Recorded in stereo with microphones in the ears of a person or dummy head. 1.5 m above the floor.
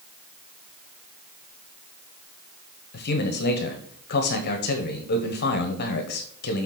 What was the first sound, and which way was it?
A man speaking, 50° left (ahead or behind).